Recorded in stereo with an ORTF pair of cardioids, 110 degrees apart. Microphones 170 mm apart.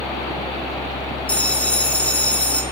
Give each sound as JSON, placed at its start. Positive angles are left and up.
{"t": 0.0, "sound": "a fan", "azimuth_deg": 20, "distance_m": 1.1}
{"t": 1.3, "sound": "a bell", "azimuth_deg": 10, "distance_m": 7.0}